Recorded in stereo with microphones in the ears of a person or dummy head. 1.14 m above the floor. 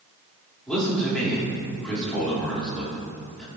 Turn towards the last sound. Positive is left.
turn(degrees=0)  # may be behind; listen again after turning